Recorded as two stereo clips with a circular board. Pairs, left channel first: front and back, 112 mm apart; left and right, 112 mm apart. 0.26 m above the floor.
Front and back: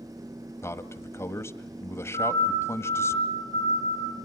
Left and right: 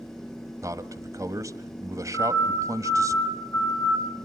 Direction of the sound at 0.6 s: 50° right.